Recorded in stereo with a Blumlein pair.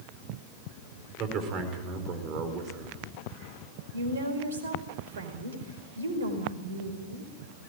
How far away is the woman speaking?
About 5 m.